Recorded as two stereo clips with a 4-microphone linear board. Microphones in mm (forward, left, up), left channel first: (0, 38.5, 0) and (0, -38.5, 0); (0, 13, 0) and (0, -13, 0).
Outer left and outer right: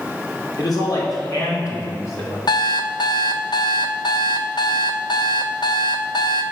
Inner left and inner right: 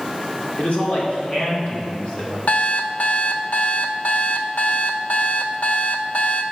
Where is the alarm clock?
60° left (ahead or behind), 0.5 m.